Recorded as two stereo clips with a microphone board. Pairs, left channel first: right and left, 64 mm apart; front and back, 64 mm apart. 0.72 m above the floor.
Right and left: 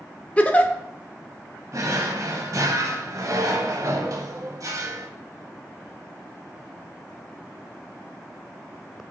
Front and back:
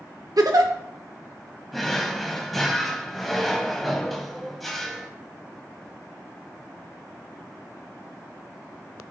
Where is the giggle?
160° right, 0.7 m.